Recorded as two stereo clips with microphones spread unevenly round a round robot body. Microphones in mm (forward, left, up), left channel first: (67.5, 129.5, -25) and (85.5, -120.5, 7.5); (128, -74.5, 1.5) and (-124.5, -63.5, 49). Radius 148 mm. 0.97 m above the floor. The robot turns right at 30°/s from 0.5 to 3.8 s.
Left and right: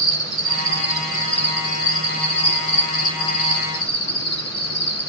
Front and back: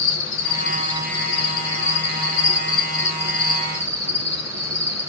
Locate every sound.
0.0 s an insect: 5° left, 1.9 m; by 5.1 s 105° left, 1.9 m